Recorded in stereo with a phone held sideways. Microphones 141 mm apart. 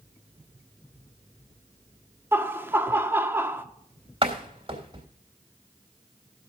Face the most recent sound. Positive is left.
turn(degrees=-40)  # may be behind; listen again after turning